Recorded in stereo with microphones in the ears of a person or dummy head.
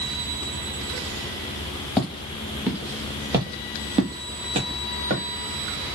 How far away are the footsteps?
About 1.5 m.